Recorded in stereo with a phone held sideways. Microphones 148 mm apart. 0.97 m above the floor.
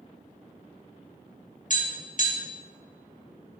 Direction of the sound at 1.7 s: 60° left (ahead or behind).